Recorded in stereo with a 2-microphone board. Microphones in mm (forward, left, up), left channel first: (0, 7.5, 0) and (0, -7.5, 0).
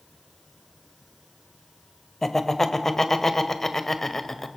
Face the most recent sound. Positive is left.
turn(degrees=20)  # may be behind; listen again after turning